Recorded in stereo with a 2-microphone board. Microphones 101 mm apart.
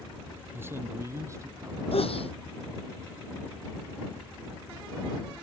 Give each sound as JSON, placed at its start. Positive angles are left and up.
{"t": 0.5, "sound": "a man speaking", "side_deg": -25}
{"t": 1.9, "sound": "a sneeze", "side_deg": 70}